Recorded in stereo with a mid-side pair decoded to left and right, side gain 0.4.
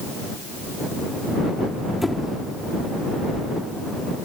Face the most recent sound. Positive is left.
turn(degrees=15)